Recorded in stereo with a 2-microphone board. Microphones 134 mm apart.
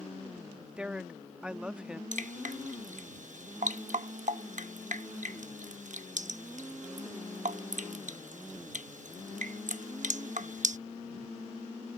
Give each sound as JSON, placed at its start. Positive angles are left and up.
{"t": 0.8, "sound": "a woman speaking", "side_deg": -5}
{"t": 2.1, "sound": "dripping", "side_deg": -70}